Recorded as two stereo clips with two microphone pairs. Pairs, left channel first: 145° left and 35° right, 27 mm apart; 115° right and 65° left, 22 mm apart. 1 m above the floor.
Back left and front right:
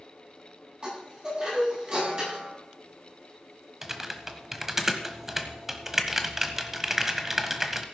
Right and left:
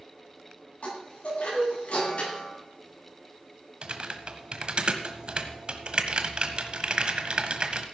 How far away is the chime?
About 9 m.